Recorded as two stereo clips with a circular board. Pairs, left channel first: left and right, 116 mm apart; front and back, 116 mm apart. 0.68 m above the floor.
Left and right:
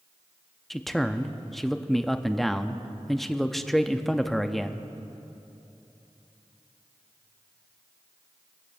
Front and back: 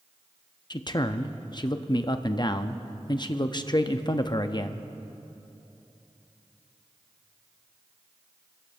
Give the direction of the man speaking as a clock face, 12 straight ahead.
12 o'clock.